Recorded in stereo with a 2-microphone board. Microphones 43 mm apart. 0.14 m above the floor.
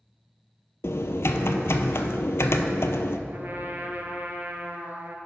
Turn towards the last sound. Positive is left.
turn(degrees=-50)  # may be behind; listen again after turning